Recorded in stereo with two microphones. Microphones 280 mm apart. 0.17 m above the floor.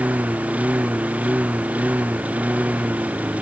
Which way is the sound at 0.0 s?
5° right (ahead or behind).